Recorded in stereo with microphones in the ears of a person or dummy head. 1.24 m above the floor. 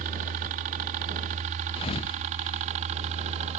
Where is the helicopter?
45° right (ahead or behind); by 3.6 s 40° right (ahead or behind).